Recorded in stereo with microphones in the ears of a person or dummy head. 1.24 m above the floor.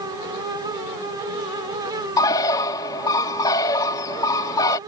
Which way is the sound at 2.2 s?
25° left (ahead or behind).